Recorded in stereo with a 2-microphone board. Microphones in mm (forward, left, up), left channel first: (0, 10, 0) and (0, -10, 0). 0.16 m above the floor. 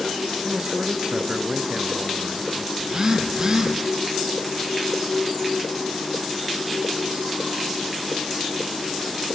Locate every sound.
0.4 s a man speaking: 40° right (ahead or behind), 1.7 m
2.8 s a phone buzzing: 30° right (ahead or behind), 3.5 m